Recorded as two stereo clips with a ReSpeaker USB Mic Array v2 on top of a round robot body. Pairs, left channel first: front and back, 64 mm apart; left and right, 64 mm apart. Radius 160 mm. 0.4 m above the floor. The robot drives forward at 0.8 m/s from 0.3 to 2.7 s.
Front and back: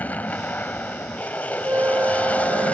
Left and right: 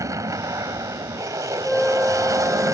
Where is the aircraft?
60° right; by 2.8 s 65° right.